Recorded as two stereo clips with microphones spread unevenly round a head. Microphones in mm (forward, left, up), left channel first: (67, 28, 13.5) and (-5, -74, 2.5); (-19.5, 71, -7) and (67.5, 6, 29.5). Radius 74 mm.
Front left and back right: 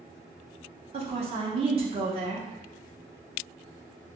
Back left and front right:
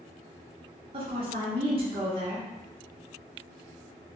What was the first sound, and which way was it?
A woman speaking, 95° right.